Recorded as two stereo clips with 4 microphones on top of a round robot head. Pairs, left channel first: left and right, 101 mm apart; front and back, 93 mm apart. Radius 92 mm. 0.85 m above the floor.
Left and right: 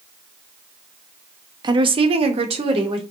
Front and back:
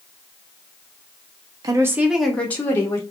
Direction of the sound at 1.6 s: 130° right.